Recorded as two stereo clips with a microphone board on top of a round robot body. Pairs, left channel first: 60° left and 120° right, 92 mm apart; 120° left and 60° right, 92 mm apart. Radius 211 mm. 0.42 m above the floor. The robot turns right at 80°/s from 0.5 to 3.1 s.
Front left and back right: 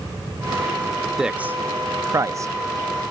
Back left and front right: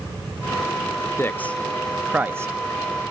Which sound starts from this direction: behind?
A man speaking, at 1.2 s.